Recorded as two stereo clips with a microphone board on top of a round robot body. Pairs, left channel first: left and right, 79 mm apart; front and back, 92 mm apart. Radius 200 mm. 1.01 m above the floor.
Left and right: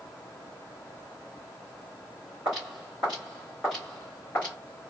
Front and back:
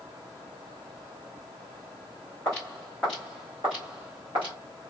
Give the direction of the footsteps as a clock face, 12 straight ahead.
2 o'clock.